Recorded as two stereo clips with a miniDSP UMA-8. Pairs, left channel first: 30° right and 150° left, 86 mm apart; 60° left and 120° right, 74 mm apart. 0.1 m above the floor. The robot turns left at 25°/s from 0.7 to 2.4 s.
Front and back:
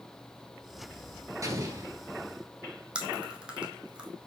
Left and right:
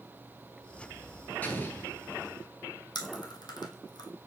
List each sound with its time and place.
1.4 s an explosion: 120° left, 1.3 m; by 1.9 s 105° left, 1.3 m
3.0 s chewing: 70° left, 1.2 m